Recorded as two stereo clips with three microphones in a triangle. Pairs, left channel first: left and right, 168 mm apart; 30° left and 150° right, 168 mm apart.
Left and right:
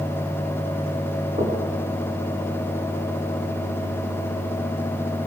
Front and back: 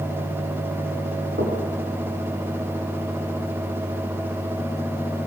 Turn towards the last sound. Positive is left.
turn(degrees=-145)